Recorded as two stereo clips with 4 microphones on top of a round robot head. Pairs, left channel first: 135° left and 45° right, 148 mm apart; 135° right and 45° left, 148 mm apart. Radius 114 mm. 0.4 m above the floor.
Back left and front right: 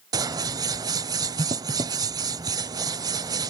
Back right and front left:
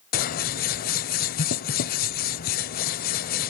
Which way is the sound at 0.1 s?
110° right.